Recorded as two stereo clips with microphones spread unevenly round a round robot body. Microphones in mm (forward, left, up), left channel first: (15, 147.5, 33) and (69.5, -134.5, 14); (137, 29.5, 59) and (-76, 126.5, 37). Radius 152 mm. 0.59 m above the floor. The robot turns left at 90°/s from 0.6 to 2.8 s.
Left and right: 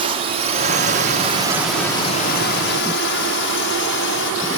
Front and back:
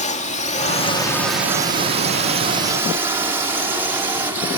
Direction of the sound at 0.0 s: 50° right.